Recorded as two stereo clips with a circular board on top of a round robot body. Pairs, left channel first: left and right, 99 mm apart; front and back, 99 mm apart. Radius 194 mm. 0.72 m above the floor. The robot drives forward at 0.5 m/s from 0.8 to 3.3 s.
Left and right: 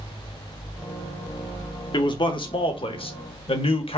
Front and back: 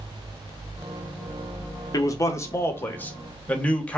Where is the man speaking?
55° left, 1.6 m; by 4.0 s 80° left, 1.4 m.